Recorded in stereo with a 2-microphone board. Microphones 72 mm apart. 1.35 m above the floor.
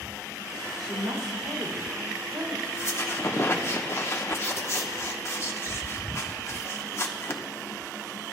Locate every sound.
0.8 s a woman speaking: 75° right (ahead or behind), 2.5 m; by 2.5 s 65° right (ahead or behind), 4.5 m
2.6 s a squeak: 35° left (ahead or behind), 1.2 m